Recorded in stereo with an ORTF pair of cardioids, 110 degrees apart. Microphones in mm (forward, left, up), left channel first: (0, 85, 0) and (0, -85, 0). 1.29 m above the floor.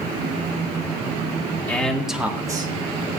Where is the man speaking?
10° left, 2 m; by 2.7 s 30° right, 1.6 m.